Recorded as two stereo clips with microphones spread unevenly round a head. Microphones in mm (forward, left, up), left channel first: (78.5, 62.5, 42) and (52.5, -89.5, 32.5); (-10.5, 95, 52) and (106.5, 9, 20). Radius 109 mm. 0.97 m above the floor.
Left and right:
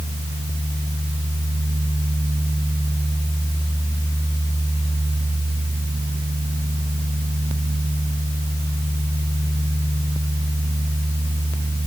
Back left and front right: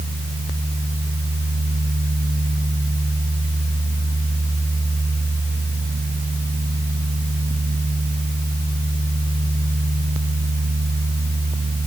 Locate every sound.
Only background noise.